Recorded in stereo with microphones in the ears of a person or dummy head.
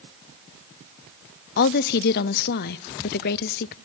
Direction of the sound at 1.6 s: 50° left (ahead or behind).